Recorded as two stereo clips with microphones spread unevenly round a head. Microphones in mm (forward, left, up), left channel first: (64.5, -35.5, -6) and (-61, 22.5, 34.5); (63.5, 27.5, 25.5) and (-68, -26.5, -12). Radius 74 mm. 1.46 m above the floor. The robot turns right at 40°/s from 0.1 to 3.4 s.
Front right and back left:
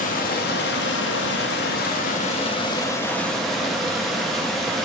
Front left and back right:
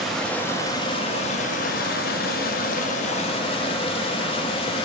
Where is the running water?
60° right, 0.8 m; by 4.9 s 70° left, 0.8 m.